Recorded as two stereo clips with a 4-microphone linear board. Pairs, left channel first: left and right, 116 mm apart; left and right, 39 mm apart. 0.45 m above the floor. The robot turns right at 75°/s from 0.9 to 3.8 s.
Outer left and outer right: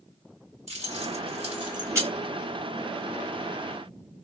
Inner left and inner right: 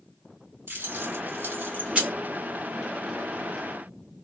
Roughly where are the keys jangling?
Right.